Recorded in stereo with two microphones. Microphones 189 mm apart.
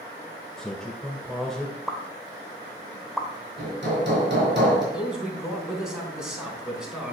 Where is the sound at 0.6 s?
Centre (ahead or behind), 1.3 m.